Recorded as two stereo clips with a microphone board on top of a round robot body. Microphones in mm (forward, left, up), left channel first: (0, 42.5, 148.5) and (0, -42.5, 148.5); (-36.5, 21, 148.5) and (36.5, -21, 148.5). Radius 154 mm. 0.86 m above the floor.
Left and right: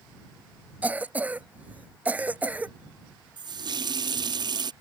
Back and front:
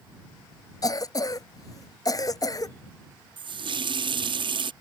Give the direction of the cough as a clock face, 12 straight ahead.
5 o'clock.